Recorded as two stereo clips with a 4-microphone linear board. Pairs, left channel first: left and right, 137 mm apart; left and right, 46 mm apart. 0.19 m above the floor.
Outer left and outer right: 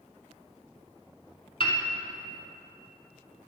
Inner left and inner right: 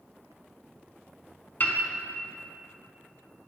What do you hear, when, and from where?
1.6 s a piano: 40° left (ahead or behind), 0.9 m